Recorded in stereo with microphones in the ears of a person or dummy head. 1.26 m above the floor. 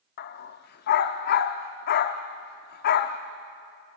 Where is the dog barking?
40° left (ahead or behind), 1.0 m.